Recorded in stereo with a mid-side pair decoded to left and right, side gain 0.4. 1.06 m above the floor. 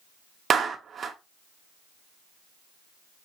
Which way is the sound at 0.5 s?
55° right.